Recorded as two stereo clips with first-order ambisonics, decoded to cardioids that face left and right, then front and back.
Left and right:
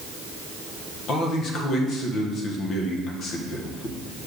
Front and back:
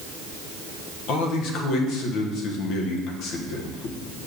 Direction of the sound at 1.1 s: 35° left.